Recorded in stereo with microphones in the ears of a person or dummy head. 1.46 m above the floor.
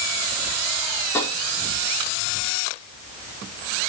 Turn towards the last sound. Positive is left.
turn(degrees=15)  # may be behind; listen again after turning